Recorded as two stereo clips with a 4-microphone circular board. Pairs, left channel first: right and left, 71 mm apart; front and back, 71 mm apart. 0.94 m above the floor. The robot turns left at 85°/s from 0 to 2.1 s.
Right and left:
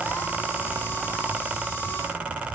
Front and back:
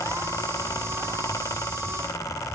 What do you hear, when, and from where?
Only background noise.